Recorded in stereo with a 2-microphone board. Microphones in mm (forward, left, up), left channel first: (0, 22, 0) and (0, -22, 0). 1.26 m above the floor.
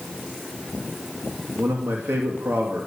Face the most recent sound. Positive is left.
turn(degrees=-65)  # may be behind; listen again after turning